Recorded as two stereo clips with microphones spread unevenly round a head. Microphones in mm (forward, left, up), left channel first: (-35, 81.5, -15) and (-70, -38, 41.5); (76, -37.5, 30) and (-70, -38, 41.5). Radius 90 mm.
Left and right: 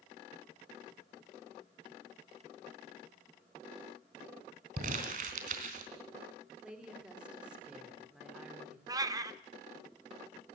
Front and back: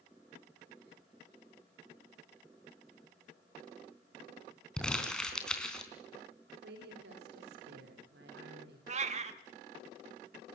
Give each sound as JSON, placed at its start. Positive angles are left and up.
{"t": 4.8, "sound": "crumpling", "azimuth_deg": -85, "distance_m": 3.5}
{"t": 6.6, "sound": "a woman speaking", "azimuth_deg": 170, "distance_m": 4.5}
{"t": 8.9, "sound": "a cat meowing", "azimuth_deg": -145, "distance_m": 1.3}